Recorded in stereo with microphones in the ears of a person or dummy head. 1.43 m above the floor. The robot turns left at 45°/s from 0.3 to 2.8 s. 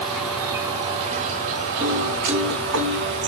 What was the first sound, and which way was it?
An insect, 10° right.